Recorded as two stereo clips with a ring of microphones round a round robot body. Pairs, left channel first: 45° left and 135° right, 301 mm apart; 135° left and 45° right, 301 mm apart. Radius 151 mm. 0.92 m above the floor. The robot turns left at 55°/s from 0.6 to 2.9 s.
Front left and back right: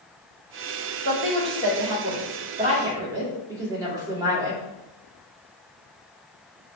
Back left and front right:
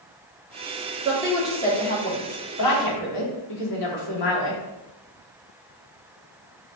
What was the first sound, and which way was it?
A woman speaking, 110° right.